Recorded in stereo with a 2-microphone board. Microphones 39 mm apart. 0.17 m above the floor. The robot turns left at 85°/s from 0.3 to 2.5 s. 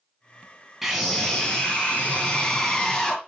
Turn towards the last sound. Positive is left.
turn(degrees=50)